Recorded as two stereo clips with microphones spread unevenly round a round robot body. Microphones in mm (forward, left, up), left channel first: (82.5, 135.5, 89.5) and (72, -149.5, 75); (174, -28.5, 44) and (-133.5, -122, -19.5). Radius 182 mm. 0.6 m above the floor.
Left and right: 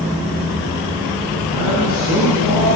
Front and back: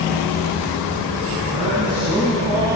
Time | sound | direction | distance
1.5 | a man speaking | 125° left | 6.5 m